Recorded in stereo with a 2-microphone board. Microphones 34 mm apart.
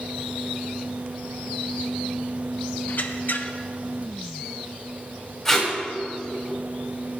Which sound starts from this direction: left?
A squeak, at 2.9 s.